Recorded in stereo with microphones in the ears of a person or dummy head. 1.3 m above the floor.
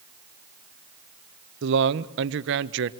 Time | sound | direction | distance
1.6 | a man speaking | 65° right (ahead or behind) | 1.3 m